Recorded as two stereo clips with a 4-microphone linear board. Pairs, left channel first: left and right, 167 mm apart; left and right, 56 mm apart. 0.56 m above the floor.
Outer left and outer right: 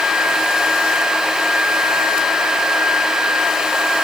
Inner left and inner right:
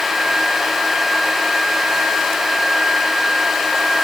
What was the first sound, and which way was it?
Only background noise.